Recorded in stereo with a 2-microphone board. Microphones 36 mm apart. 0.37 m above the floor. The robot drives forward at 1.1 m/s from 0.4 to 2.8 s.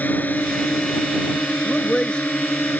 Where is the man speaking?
25° left (ahead or behind); by 2.3 s 20° left (ahead or behind).